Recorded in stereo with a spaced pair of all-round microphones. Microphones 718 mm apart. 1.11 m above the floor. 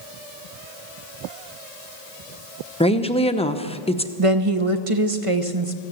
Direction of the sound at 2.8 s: 10° left (ahead or behind).